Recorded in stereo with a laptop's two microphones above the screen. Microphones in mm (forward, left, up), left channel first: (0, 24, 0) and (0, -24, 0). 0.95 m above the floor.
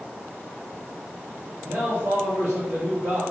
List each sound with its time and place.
1.6 s a man speaking: 60° right (ahead or behind), 1.8 m